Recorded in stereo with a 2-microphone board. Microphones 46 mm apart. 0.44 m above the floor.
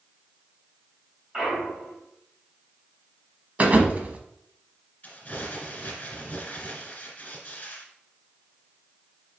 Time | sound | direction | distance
1.3 | a clunk | 10° right (ahead or behind) | 3 m
3.6 | a thud | 30° right (ahead or behind) | 0.9 m
5.0 | crumpling | 30° left (ahead or behind) | 1.8 m